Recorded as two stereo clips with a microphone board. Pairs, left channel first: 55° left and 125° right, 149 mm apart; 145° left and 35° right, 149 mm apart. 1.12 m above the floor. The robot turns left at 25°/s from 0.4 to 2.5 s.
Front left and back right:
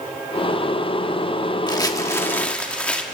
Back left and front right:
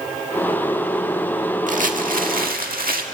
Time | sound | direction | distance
1.7 | crumpling | 5° right | 1.5 m